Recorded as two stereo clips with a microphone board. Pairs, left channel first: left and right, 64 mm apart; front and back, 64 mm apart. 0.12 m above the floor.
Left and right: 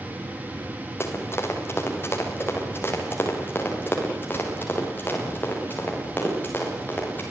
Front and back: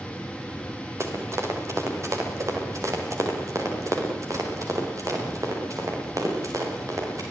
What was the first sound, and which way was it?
Running footsteps, 135° left.